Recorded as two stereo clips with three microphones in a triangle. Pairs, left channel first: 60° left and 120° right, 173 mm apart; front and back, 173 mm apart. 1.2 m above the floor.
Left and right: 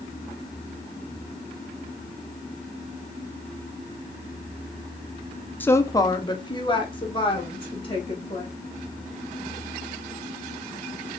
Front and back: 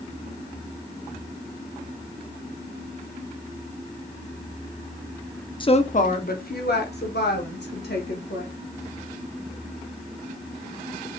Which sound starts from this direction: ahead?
A woman speaking, at 5.6 s.